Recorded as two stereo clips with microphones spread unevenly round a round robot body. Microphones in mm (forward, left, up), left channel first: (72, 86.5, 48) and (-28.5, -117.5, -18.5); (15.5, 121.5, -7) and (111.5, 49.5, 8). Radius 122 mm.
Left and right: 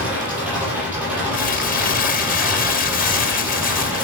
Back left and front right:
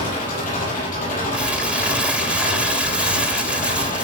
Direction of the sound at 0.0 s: 160° left.